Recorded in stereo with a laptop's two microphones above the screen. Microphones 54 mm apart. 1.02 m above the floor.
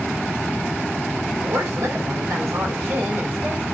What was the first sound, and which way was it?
A woman speaking, 75° right (ahead or behind).